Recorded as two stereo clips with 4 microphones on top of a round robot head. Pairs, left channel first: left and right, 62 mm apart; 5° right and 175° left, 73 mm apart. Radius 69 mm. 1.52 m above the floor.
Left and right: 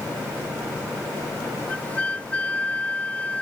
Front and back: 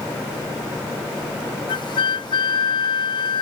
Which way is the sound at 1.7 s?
15° left.